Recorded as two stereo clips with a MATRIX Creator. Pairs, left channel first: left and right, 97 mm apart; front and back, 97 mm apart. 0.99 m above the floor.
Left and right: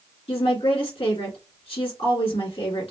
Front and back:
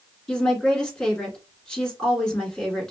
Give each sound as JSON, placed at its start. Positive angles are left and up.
{"t": 0.3, "sound": "a woman speaking", "azimuth_deg": 85, "distance_m": 2.5}